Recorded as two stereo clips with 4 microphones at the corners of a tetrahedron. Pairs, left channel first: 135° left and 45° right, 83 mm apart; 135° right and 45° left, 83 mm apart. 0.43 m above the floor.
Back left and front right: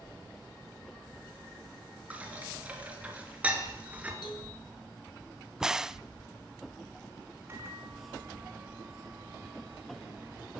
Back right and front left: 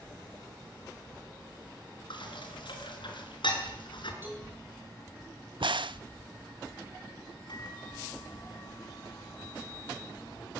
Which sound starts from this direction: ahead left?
A crack, at 5.6 s.